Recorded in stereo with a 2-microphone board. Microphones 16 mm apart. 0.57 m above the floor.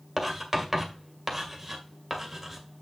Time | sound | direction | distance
0.2 | writing | 10° right (ahead or behind) | 1.9 m